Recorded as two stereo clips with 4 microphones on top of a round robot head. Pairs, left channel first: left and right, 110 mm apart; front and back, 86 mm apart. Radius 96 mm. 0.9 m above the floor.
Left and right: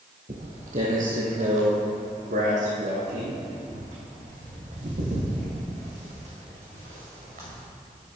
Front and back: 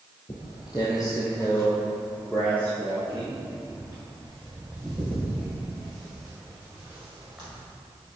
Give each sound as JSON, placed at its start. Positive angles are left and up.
{"t": 0.3, "sound": "footsteps", "azimuth_deg": -60, "distance_m": 1.6}